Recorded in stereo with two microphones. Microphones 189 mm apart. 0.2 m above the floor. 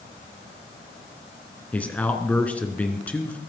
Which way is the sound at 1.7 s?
10° left (ahead or behind).